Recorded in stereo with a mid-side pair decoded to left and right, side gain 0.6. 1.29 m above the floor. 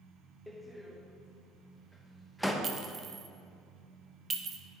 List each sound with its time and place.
0.5 s a door slam: straight ahead, 0.8 m
2.6 s a clink: 35° right, 0.8 m